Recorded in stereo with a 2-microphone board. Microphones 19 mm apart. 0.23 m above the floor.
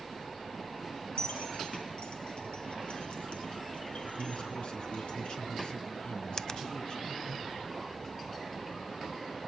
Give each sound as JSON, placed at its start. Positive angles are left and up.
{"t": 1.2, "sound": "keys jangling", "side_deg": 60, "distance_m": 3.5}
{"t": 4.2, "sound": "a man speaking", "side_deg": 55, "distance_m": 3.5}
{"t": 6.4, "sound": "a finger snap", "side_deg": 35, "distance_m": 0.9}